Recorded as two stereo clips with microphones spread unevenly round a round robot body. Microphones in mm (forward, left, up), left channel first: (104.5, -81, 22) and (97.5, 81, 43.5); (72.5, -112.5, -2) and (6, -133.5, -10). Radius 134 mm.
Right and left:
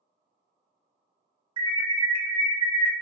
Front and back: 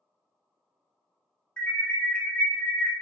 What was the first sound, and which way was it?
An alarm, 75° left.